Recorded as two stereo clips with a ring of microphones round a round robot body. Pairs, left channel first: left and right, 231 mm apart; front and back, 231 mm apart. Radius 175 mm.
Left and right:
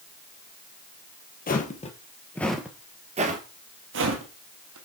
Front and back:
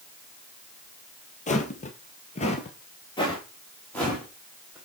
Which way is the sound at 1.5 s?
50° left.